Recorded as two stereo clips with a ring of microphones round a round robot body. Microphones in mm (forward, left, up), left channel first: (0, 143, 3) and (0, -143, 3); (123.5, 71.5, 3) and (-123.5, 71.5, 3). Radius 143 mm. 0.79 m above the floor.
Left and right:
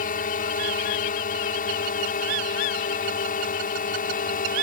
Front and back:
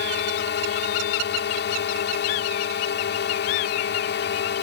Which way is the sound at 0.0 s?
35° left.